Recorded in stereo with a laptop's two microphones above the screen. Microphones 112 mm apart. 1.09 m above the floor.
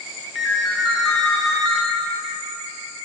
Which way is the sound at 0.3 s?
Centre (ahead or behind).